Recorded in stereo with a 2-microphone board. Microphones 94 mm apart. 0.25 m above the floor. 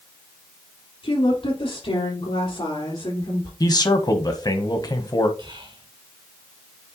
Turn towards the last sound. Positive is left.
turn(degrees=-60)  # may be behind; listen again after turning